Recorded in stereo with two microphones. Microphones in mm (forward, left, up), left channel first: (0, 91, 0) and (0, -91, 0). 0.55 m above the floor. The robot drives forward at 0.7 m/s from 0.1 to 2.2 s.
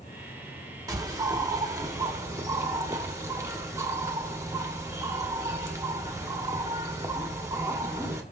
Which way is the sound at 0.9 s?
20° right (ahead or behind).